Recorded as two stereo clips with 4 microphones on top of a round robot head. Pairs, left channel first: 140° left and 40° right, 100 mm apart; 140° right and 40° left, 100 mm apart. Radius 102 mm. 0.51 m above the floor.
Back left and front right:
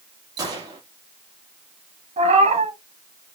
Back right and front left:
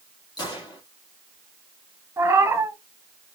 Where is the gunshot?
90° right, 4.5 m.